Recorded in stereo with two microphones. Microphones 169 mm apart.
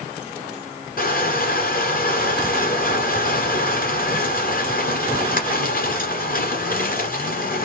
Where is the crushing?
60° left (ahead or behind), 1.5 m.